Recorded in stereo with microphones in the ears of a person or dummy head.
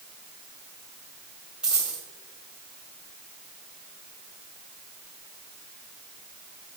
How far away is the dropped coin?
About 3 m.